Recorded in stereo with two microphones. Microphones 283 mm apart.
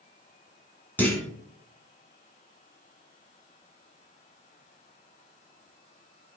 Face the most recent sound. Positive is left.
turn(degrees=5)  # may be behind; listen again after turning